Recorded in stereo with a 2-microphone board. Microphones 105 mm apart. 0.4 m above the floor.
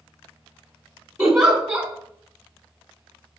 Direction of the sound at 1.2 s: 10° right (ahead or behind).